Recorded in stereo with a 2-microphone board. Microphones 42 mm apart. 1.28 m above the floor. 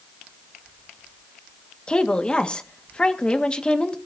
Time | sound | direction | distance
1.9 | a woman speaking | 25° left (ahead or behind) | 1.7 m